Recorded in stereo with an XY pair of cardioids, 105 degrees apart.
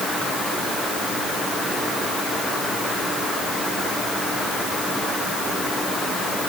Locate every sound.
Only background noise.